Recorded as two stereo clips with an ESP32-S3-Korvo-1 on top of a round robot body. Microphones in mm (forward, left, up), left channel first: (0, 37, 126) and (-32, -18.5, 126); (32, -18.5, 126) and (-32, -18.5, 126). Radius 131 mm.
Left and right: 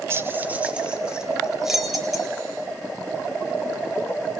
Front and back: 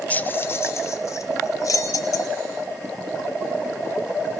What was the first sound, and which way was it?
Keys jangling, 70° right.